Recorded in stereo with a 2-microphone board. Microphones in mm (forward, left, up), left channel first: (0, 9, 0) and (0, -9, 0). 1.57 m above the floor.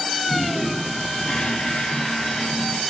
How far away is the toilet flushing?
About 6.5 m.